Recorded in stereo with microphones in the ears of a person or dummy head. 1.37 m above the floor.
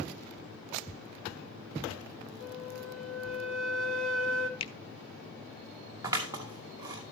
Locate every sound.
2.4 s a flute: 90° left, 1.4 m
4.6 s a finger snap: 35° left (ahead or behind), 0.8 m
6.0 s scissors: 20° right (ahead or behind), 2.5 m